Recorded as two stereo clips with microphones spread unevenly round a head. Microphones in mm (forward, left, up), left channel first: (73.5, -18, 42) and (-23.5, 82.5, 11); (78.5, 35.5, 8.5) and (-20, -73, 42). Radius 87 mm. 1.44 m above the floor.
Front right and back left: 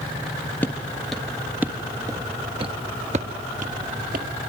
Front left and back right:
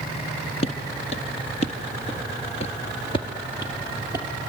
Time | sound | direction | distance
0.6 | footsteps | 5° left | 1.7 m